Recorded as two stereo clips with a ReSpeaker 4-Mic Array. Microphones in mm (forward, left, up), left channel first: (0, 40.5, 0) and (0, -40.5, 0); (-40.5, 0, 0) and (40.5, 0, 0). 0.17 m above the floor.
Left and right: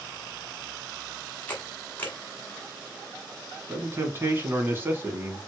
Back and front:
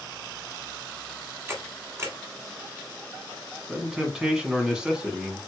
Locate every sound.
1.5 s a camera shutter: 35° left, 1.5 m
3.7 s a man speaking: 70° right, 1.2 m